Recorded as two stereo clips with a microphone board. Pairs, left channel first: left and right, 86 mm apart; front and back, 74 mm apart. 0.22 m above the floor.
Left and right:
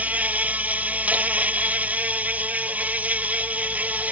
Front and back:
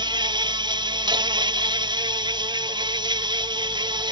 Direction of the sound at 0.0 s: 165° right.